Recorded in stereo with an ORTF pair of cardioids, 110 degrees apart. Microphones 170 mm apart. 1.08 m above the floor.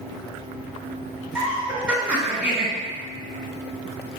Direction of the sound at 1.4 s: 5° right.